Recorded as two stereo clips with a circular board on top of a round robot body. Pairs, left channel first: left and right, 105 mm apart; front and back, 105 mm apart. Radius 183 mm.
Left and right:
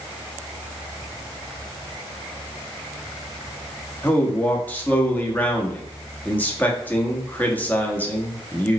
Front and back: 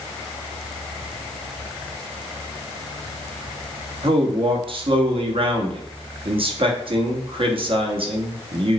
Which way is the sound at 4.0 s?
165° left.